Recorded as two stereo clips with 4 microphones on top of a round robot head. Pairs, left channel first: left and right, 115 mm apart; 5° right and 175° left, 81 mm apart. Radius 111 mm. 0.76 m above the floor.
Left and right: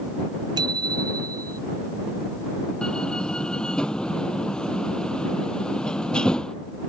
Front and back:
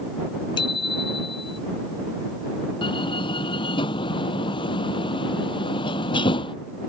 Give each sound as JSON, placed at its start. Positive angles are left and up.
{"t": 0.6, "sound": "a bicycle bell", "azimuth_deg": -35}
{"t": 2.8, "sound": "a door slam", "azimuth_deg": 5}